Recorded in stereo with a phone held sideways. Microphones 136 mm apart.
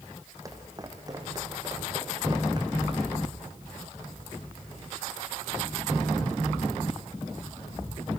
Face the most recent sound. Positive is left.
turn(degrees=-30)  # may be behind; listen again after turning